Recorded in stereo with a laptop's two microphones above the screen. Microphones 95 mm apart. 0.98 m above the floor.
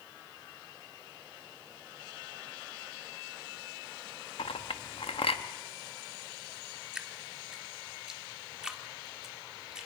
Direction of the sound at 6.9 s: 5° right (ahead or behind).